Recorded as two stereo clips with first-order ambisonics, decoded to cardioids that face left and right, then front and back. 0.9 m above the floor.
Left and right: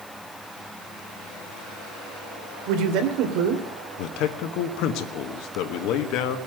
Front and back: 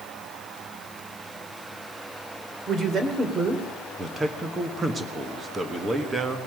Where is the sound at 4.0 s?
105° left, 1.4 m.